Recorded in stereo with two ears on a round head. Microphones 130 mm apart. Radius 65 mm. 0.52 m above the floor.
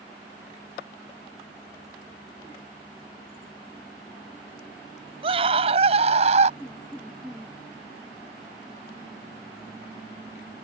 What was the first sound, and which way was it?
A scream, 40° right (ahead or behind).